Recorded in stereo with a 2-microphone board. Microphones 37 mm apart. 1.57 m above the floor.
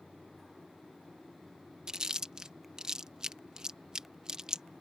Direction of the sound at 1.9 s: 15° right (ahead or behind).